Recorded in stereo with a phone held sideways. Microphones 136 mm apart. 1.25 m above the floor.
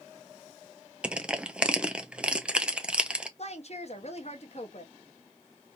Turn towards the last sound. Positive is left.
turn(degrees=50)  # may be behind; listen again after turning